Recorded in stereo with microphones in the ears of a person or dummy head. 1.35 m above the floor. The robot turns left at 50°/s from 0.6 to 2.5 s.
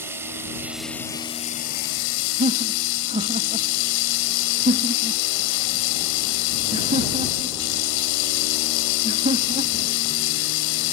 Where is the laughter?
35° right (ahead or behind); by 9.9 s 30° right (ahead or behind).